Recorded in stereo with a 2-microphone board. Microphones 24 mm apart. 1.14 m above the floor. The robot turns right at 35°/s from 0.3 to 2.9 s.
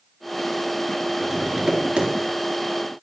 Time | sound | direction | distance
1.2 | tapping | 165° right | 2 m